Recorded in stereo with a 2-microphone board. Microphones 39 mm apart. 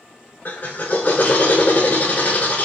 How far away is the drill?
About 0.8 m.